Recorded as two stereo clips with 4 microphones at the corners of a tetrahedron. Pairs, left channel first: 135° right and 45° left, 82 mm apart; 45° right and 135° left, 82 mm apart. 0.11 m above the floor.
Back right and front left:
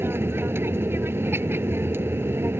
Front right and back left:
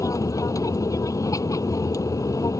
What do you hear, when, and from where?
0.0 s an aircraft: 10° right